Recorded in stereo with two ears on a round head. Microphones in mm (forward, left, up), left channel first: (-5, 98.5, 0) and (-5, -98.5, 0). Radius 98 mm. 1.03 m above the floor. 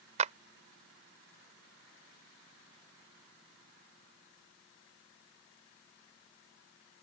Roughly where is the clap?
Right.